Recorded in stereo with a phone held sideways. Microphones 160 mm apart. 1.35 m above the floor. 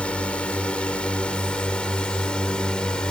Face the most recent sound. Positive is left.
turn(degrees=5)  # may be behind; listen again after turning